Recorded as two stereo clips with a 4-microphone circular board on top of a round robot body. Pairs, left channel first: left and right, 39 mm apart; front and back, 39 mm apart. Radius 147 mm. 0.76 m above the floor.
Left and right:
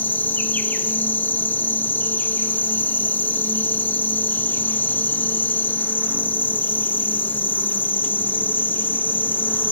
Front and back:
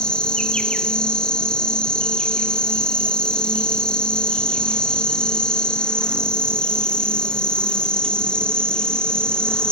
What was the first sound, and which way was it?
An insect, 65° left.